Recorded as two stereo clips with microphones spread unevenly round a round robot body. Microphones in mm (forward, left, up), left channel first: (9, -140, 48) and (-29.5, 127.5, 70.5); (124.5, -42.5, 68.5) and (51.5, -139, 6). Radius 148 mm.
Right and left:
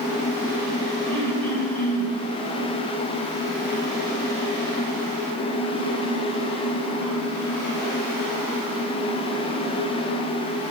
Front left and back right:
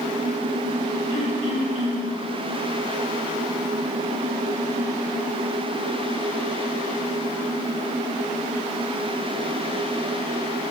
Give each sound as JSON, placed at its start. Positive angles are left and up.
{"t": 1.1, "sound": "throat clearing", "azimuth_deg": 0, "distance_m": 3.0}